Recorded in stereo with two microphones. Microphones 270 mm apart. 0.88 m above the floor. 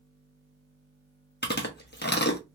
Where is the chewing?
40° left (ahead or behind), 1.0 m.